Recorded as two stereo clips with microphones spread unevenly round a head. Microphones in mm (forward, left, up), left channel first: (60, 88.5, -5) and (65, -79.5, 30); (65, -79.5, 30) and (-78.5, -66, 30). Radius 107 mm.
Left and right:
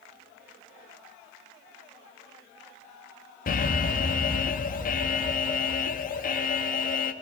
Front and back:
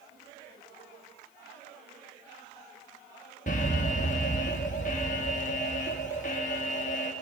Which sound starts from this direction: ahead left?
An alarm, at 3.5 s.